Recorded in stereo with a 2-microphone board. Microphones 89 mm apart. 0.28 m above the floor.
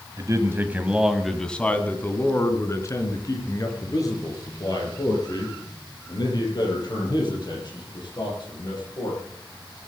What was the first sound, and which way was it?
A man speaking, 40° right (ahead or behind).